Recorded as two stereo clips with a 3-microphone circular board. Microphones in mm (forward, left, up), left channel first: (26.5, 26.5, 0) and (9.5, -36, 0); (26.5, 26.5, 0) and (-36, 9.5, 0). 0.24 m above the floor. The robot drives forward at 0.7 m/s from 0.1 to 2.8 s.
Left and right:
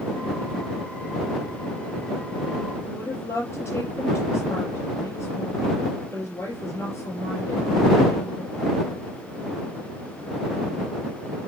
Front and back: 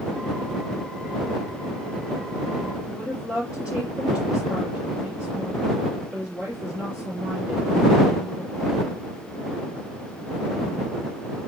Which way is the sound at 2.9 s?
125° left.